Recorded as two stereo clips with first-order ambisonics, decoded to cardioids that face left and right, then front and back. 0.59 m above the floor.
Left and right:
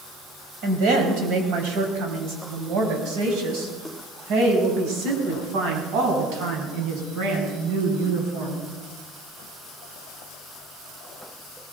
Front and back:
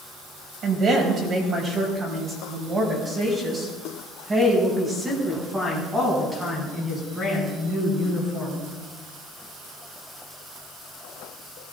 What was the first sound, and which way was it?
A woman speaking, 120° right.